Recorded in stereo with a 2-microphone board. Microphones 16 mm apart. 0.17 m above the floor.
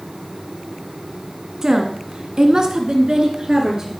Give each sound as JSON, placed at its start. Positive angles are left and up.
{"t": 1.6, "sound": "a woman speaking", "side_deg": -30, "distance_m": 1.3}